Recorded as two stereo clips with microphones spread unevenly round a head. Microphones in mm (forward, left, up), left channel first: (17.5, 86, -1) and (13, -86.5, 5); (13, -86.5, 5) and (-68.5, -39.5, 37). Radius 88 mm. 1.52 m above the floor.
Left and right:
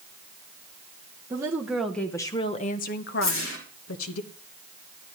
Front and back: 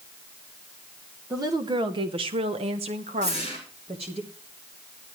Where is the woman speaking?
165° right, 1.2 m; by 4.2 s 95° left, 1.6 m.